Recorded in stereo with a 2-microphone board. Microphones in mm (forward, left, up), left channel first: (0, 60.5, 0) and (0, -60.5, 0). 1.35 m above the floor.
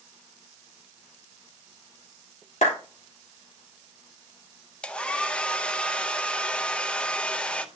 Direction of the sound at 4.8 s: 10° left (ahead or behind).